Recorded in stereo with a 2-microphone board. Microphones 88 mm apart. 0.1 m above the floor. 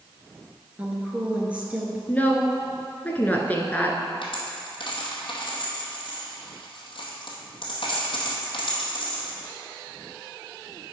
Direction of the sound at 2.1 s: 20° left (ahead or behind).